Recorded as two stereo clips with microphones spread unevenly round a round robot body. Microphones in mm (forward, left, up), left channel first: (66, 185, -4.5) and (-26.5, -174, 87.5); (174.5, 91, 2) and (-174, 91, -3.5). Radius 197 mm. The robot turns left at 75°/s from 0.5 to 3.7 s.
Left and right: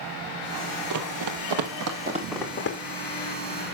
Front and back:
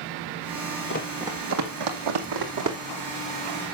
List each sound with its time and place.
0.9 s running footsteps: 65° right, 1.4 m; by 2.8 s 130° left, 2 m